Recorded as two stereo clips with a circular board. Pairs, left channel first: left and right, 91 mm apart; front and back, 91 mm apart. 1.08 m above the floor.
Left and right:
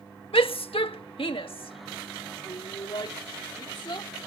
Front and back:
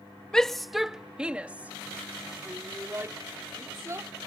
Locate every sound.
0.3 s a shout: 80° left; by 4.1 s 125° left